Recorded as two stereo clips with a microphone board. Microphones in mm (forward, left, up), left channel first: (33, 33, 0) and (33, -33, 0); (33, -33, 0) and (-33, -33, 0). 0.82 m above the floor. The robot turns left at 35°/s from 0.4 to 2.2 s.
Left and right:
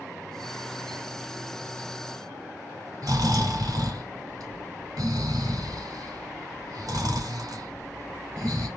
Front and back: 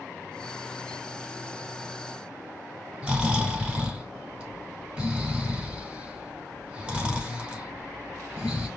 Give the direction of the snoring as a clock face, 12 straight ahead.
4 o'clock.